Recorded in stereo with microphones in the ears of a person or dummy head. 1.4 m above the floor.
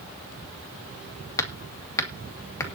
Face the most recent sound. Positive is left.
turn(degrees=20)  # may be behind; listen again after turning